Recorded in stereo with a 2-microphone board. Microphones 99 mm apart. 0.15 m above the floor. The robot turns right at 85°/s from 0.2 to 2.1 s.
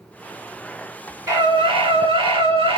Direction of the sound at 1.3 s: 150° right.